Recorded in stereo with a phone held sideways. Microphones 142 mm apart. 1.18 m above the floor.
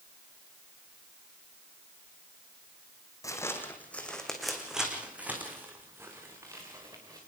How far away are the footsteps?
About 3 m.